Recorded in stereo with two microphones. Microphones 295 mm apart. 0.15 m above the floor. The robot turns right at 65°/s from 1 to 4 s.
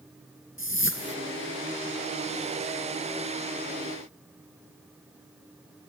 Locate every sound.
0.6 s a whoosh: 40° left (ahead or behind), 2 m; by 1.1 s 35° left (ahead or behind), 2 m